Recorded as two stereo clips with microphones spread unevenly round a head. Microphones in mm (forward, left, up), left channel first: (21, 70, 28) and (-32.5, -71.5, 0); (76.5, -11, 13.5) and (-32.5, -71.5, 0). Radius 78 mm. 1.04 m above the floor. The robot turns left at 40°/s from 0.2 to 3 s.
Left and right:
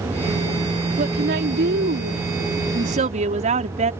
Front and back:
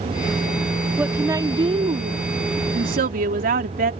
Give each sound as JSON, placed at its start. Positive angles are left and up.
{"t": 1.0, "sound": "a woman speaking", "azimuth_deg": -75}